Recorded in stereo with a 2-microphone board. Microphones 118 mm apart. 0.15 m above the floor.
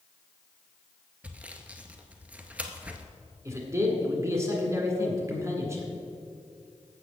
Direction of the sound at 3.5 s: 25° right (ahead or behind).